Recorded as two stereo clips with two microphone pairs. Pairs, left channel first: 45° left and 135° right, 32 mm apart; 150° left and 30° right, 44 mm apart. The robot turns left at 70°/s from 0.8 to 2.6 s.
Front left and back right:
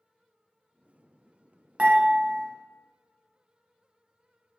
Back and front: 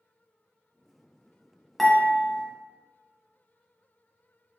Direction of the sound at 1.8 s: 125° right.